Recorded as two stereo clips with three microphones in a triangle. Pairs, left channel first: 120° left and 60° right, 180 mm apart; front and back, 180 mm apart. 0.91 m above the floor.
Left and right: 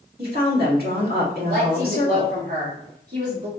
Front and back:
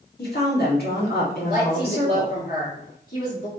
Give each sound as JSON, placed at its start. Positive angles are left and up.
{"t": 0.2, "sound": "a woman speaking", "azimuth_deg": -30, "distance_m": 1.9}
{"t": 1.5, "sound": "a woman speaking", "azimuth_deg": -30, "distance_m": 2.0}